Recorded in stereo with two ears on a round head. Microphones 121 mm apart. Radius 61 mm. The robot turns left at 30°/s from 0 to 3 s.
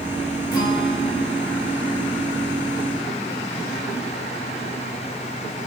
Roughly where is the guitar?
Behind left.